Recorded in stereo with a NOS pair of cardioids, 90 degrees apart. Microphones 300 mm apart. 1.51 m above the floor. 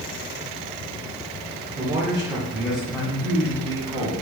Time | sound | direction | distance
1.8 | a man speaking | 20° right | 1.4 m